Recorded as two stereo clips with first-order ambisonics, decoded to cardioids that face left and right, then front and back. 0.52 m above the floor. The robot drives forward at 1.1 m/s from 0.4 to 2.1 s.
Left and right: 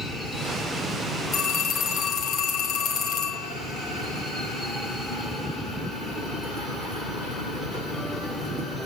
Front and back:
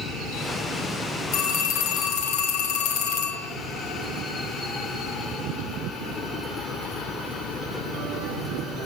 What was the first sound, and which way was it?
A phone ringing, 25° left.